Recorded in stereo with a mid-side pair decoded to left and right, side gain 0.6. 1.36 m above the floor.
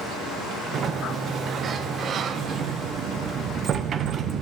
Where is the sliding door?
40° right, 0.8 m.